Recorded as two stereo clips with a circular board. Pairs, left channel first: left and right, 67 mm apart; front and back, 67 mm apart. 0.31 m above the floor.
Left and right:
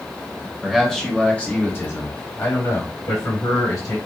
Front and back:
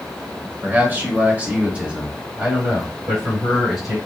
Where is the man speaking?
175° right, 1.1 m; by 4.0 s 100° left, 2 m.